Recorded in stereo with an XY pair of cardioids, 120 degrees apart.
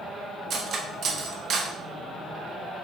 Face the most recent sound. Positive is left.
turn(degrees=-50)